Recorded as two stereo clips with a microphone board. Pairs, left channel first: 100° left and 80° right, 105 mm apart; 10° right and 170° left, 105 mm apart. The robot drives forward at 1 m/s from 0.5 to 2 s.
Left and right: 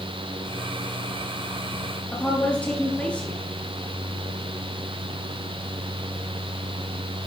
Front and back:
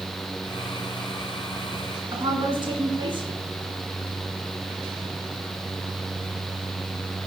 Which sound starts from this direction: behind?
A woman speaking, at 2.1 s.